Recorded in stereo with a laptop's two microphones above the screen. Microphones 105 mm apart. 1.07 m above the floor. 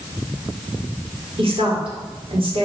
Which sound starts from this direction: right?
A woman speaking, at 1.4 s.